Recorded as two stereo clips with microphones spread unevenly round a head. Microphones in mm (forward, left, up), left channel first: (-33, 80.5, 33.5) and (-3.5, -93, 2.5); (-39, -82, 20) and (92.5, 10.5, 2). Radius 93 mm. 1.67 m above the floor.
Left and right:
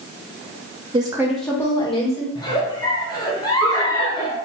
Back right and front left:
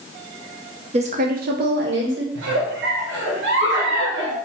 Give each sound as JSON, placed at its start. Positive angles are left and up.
{"t": 0.9, "sound": "a woman speaking", "azimuth_deg": -15, "distance_m": 0.8}
{"t": 2.4, "sound": "a giggle", "azimuth_deg": 30, "distance_m": 0.9}